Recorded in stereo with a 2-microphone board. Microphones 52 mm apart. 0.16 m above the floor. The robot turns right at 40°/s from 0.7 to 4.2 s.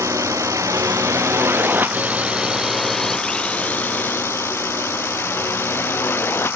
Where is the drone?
75° right (ahead or behind); by 6.6 s 45° left (ahead or behind).